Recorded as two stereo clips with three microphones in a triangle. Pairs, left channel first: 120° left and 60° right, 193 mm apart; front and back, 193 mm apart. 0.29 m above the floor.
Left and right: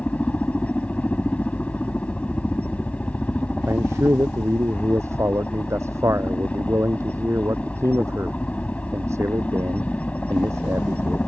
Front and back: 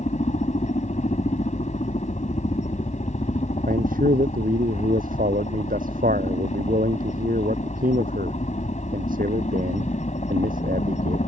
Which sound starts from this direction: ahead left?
A helicopter, at 0.0 s.